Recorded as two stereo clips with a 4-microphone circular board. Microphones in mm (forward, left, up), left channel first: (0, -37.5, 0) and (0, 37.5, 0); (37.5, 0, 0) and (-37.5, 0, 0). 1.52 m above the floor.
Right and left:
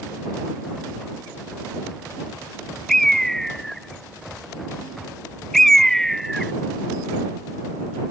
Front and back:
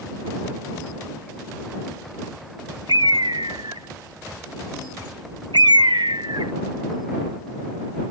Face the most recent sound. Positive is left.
turn(degrees=-175)